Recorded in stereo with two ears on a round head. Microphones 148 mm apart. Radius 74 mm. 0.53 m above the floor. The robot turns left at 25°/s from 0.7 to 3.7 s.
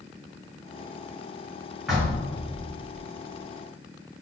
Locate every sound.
1.9 s knocking: centre (ahead or behind), 1.2 m; by 3.0 s 15° left (ahead or behind), 1.2 m